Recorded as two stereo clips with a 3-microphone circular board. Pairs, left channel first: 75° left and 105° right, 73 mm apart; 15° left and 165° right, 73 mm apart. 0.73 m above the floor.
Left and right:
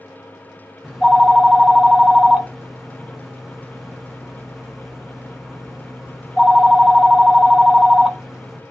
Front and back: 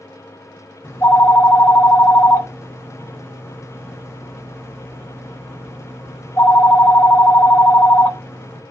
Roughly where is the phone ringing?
Ahead.